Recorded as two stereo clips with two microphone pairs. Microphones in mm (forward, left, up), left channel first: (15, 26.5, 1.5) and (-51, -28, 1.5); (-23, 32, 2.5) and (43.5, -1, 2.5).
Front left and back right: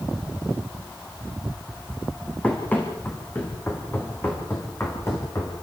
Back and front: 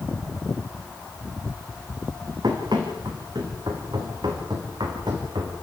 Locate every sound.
2.4 s running footsteps: 30° right, 4.5 m; by 5.5 s 20° right, 5.5 m